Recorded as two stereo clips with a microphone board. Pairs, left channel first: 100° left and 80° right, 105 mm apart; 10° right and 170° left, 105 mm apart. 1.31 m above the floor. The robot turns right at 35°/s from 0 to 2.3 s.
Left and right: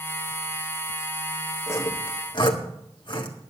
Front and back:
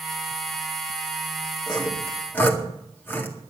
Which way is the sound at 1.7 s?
35° left.